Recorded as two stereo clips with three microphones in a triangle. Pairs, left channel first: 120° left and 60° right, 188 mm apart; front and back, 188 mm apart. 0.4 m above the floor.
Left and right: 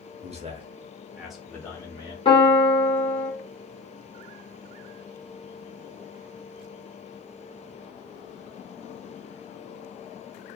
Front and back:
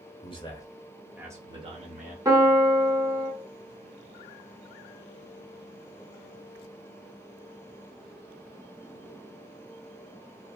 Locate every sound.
0.2 s a man speaking: 40° right, 0.9 m; by 2.1 s 175° left, 1.0 m
2.2 s a piano: 130° left, 0.9 m